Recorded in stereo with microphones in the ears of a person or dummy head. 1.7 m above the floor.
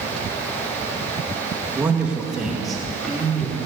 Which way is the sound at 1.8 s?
15° right (ahead or behind).